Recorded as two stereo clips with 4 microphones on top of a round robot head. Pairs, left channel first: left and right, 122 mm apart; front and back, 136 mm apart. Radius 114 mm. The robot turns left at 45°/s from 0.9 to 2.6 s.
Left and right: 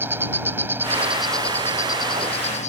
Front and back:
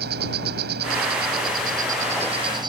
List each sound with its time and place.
0.0 s an insect: 165° right; by 2.7 s 120° left